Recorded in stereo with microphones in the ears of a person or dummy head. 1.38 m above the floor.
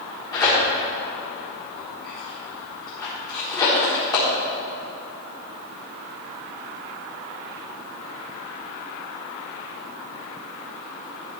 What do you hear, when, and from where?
0.3 s tearing paper: 20° left (ahead or behind), 4.5 m